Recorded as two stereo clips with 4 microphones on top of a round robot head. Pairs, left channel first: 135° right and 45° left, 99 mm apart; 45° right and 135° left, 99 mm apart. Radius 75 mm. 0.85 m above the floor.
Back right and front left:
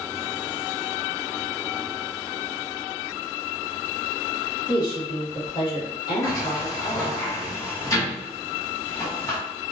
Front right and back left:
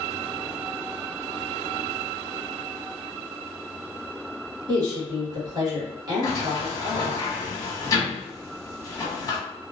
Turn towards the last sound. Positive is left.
turn(degrees=-85)